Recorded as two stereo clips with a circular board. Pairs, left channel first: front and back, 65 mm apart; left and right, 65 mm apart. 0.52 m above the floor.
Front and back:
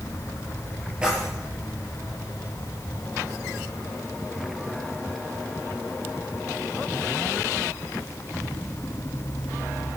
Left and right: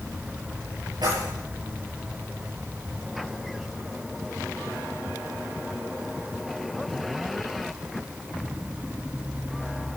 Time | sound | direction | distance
1.0 | keys jangling | 105° right | 8.5 m